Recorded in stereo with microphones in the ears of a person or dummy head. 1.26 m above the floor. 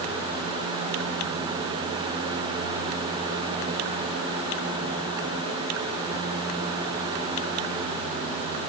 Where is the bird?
I don't hear a bird.